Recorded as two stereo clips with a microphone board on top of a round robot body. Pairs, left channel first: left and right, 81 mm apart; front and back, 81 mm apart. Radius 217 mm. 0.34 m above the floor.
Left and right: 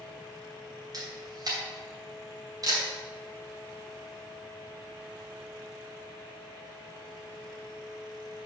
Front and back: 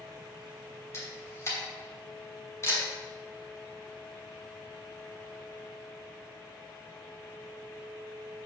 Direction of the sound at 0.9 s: 55° right.